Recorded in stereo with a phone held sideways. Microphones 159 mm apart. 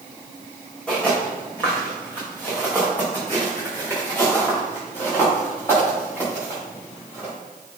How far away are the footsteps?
About 3.5 m.